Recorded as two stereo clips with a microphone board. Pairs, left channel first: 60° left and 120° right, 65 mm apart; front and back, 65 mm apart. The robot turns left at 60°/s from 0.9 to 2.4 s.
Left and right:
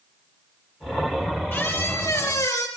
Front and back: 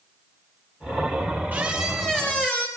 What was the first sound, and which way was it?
A squeak, 115° left.